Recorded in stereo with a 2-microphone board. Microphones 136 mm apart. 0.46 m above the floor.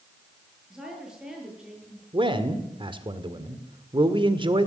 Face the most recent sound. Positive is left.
turn(degrees=-35)  # may be behind; listen again after turning